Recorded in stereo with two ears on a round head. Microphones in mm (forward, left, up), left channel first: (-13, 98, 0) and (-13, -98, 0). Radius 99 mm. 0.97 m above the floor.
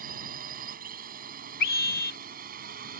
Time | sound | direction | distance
0.0 | a drone | 40° right (ahead or behind) | ?
1.6 | a scream | 45° left (ahead or behind) | ?